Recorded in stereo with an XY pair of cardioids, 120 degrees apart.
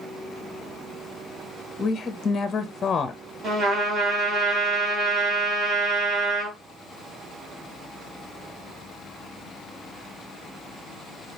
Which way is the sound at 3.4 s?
45° right.